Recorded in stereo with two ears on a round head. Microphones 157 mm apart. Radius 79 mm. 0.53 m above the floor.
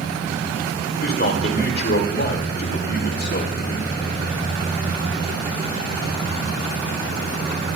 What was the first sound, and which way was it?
A man speaking, 55° left (ahead or behind).